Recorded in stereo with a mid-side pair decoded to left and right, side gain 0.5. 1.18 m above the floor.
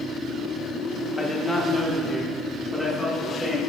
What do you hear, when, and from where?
1.2 s a man speaking: 25° left, 1.5 m; by 3.6 s 5° left, 3.5 m